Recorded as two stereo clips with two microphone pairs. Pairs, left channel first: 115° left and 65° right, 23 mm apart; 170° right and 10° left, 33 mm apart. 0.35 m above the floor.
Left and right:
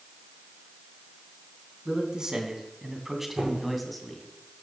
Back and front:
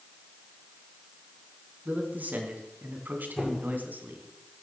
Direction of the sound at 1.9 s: 20° right.